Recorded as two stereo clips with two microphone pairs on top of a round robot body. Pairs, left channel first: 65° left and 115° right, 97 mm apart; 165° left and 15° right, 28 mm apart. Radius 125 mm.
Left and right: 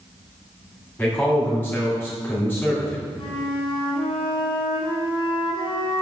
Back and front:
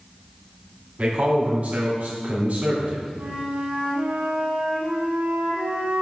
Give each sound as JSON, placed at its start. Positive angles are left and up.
{"t": 1.0, "sound": "a man speaking", "azimuth_deg": 5, "distance_m": 2.5}
{"t": 3.2, "sound": "a flute", "azimuth_deg": 30, "distance_m": 2.0}